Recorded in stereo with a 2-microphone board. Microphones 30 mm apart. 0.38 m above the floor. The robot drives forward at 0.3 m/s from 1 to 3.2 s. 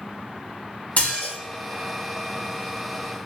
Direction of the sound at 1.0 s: 65° left (ahead or behind).